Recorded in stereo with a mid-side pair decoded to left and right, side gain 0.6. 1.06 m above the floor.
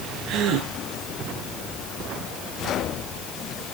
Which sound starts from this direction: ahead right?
A gasp, at 0.3 s.